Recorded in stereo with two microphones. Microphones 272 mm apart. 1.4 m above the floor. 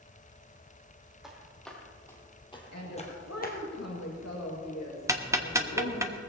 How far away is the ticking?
About 0.9 m.